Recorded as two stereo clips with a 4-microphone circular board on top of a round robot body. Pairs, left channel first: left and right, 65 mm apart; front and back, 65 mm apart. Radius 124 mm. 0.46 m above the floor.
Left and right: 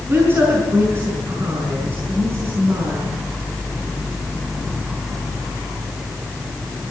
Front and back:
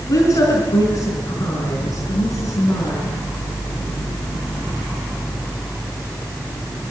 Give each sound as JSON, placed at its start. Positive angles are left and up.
{"t": 0.1, "sound": "a woman speaking", "azimuth_deg": -35, "distance_m": 5.5}